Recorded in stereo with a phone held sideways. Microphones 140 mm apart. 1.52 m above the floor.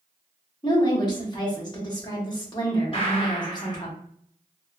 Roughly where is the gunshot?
Left.